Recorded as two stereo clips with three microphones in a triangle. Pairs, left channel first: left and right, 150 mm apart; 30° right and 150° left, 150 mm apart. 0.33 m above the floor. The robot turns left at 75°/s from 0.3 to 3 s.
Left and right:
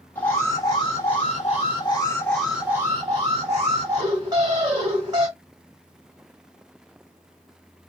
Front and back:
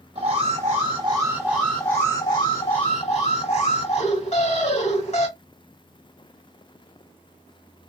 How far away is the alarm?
About 1.6 m.